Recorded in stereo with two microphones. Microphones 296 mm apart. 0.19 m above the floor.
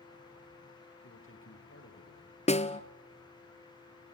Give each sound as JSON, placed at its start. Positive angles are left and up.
{"t": 1.0, "sound": "a man speaking", "side_deg": 45, "distance_m": 3.5}
{"t": 2.5, "sound": "a snare drum", "side_deg": 20, "distance_m": 0.9}